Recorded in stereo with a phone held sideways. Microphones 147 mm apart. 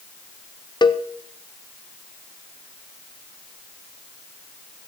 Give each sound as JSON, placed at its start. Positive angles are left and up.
{"t": 0.8, "sound": "a cowbell", "side_deg": 30, "distance_m": 0.5}